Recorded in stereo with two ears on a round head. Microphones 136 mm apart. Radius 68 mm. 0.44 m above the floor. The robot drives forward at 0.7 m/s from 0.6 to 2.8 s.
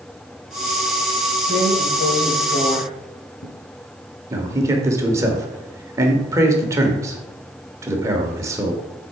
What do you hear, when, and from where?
1.5 s a drawer: 50° left (ahead or behind), 1.7 m; by 3.5 s 70° left (ahead or behind), 1.4 m
4.3 s a man speaking: 20° right (ahead or behind), 1.2 m